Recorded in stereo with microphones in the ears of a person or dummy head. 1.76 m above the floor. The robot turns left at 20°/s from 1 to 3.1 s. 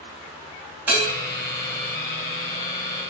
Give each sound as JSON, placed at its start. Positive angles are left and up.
{"t": 0.9, "sound": "a bell", "side_deg": -10, "distance_m": 3.5}